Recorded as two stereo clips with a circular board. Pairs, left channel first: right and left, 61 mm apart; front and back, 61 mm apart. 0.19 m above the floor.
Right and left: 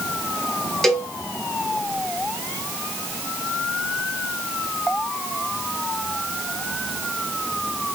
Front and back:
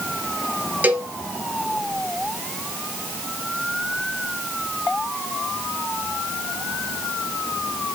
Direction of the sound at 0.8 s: 170° right.